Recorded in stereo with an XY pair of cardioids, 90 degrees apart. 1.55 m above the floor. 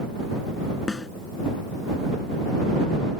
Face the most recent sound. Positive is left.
turn(degrees=30)